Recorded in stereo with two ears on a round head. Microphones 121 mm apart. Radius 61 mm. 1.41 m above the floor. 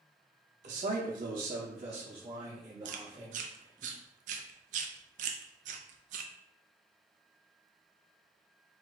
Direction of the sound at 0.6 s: 55° right (ahead or behind).